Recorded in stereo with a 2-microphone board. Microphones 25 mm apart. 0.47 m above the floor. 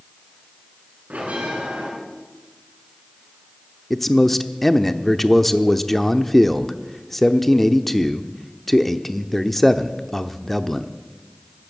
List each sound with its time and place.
1.1 s a bell: 75° right (ahead or behind), 5.5 m
3.9 s a man speaking: 10° left (ahead or behind), 0.7 m